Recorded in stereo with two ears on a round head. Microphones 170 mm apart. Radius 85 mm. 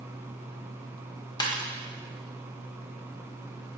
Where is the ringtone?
20° left (ahead or behind), 1.3 m.